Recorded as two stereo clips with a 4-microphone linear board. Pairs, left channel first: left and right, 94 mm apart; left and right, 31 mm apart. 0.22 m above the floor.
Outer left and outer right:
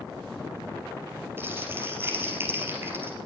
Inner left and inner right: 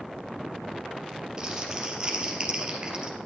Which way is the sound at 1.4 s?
25° right (ahead or behind).